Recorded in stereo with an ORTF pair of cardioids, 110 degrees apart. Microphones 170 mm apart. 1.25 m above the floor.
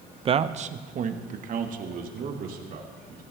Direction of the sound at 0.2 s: 30° right.